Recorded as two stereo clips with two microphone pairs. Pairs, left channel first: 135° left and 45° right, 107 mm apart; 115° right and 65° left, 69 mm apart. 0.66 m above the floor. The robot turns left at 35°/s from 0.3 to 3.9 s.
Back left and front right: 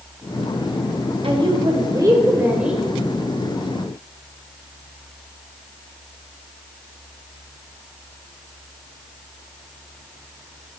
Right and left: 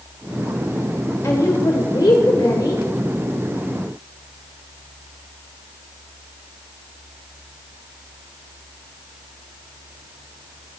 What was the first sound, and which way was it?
A woman speaking, 75° right.